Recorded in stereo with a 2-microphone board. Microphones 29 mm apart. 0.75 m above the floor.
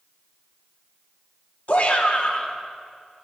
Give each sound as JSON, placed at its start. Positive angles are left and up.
{"t": 1.7, "sound": "a shout", "side_deg": 50, "distance_m": 1.7}